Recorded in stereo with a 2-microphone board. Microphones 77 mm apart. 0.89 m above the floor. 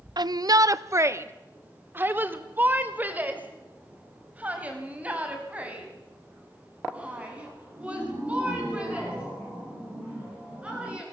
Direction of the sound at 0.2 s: 65° right (ahead or behind).